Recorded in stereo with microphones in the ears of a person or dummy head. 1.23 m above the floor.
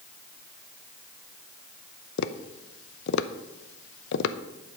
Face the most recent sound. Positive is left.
turn(degrees=70)  # may be behind; listen again after turning